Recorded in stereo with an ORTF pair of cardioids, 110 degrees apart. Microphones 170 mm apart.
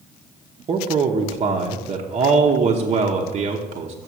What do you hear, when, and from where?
0.7 s a man speaking: 40° right, 0.9 m